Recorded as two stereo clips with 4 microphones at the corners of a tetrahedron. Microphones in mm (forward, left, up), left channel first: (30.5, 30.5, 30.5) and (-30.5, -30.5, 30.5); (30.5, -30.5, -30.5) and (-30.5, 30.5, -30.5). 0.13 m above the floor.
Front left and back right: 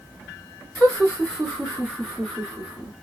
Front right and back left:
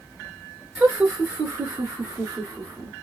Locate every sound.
0.8 s laughter: 90° left, 1.8 m; by 2.9 s 145° left, 2 m